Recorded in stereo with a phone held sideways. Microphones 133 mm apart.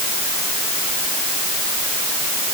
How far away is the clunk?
No clunk in this recording.